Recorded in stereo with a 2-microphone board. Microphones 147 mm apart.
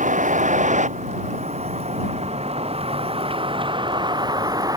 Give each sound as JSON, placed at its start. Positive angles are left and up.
{"t": 0.0, "sound": "a vehicle", "side_deg": -60}